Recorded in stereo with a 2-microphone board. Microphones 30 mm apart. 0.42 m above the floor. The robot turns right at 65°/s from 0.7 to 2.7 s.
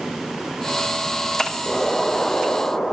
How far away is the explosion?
About 1.0 m.